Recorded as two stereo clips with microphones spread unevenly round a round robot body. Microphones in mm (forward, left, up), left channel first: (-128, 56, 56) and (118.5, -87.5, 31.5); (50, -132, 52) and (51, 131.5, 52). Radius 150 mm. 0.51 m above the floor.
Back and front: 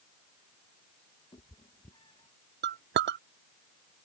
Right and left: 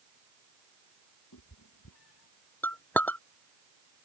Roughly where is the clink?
Ahead.